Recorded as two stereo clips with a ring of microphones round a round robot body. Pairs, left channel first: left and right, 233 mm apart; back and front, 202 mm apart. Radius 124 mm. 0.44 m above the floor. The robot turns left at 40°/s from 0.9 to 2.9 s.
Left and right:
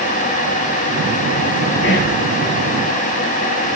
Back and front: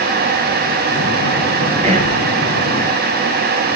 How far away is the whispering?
About 3 m.